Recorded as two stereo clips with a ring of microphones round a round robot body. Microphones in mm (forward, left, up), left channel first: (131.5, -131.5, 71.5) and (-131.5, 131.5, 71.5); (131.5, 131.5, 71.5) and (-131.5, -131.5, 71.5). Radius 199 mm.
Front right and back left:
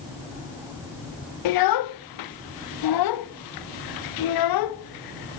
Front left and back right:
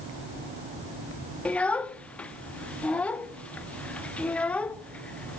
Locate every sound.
1.4 s a child speaking: 40° right, 0.7 m